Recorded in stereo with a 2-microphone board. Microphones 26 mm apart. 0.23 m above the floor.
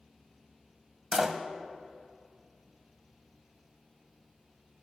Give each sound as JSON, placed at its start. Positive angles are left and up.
{"t": 1.1, "sound": "a door slam", "side_deg": -15, "distance_m": 0.6}